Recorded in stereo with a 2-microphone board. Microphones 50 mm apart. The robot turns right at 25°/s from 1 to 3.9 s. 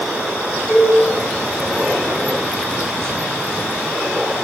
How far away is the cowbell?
About 1.5 m.